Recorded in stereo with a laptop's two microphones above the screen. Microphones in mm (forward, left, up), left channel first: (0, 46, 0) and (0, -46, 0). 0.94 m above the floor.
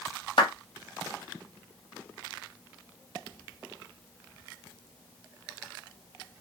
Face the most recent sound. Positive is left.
turn(degrees=70)  # may be behind; listen again after turning